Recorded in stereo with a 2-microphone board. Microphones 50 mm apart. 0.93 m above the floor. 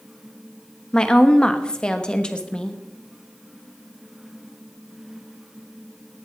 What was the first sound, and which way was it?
A woman speaking, 20° left (ahead or behind).